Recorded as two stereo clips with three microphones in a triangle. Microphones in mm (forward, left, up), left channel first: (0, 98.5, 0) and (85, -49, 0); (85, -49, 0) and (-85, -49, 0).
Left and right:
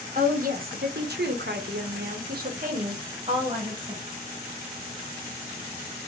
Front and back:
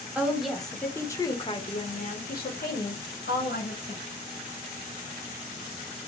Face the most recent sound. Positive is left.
turn(degrees=5)